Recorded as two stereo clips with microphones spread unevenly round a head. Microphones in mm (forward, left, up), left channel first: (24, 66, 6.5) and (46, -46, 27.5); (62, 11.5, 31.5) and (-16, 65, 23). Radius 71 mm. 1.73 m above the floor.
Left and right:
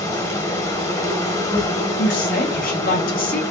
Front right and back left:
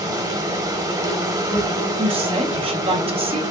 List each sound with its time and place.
0.0 s an insect: 135° left, 0.8 m
2.0 s a woman speaking: 125° left, 1.0 m